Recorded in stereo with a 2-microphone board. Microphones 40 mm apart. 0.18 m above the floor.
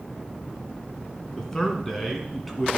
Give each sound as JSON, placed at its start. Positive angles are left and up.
{"t": 1.4, "sound": "a man speaking", "side_deg": 15, "distance_m": 2.0}